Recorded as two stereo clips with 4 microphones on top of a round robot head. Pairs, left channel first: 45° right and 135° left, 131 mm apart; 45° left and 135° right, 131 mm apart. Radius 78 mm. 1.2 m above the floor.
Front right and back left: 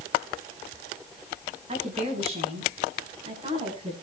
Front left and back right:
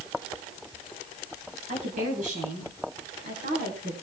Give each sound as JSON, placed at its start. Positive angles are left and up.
{"t": 1.7, "sound": "a woman speaking", "azimuth_deg": -175, "distance_m": 8.5}